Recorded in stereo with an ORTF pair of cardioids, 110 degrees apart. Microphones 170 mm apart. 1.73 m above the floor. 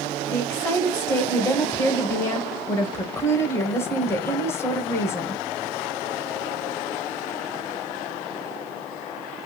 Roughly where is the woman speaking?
Ahead.